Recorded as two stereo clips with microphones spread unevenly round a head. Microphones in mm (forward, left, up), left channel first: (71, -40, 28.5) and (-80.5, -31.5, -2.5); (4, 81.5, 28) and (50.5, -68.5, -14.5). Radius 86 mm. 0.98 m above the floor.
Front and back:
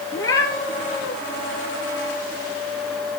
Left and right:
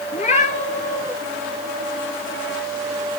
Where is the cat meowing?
70° left, 5 m.